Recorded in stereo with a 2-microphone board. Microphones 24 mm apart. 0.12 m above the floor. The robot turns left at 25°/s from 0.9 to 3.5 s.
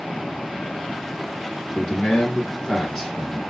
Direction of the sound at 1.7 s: 60° left.